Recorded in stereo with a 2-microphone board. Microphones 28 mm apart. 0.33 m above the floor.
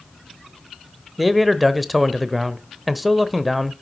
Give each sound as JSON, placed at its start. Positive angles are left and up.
{"t": 1.2, "sound": "a man speaking", "side_deg": 0, "distance_m": 0.9}